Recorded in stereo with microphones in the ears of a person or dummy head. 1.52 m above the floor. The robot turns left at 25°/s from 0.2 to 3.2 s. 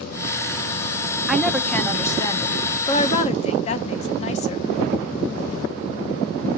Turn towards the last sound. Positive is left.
turn(degrees=135)